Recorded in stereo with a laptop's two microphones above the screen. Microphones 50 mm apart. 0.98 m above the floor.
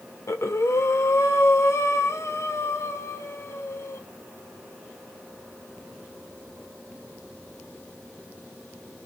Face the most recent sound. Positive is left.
turn(degrees=65)  # may be behind; listen again after turning